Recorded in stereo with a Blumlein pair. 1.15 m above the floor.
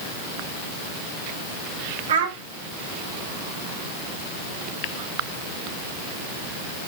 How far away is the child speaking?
About 1.7 m.